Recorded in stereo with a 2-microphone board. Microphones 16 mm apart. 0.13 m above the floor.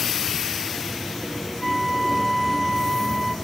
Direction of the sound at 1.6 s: 10° left (ahead or behind).